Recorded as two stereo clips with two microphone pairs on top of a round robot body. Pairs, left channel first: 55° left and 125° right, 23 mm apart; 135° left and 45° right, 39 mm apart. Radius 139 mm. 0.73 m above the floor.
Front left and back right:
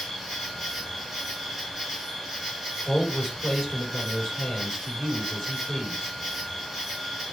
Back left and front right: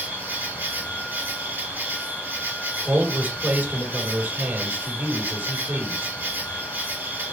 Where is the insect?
40° right, 3 m.